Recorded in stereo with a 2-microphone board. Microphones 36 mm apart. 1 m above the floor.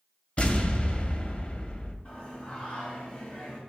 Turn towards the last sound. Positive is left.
turn(degrees=35)  # may be behind; listen again after turning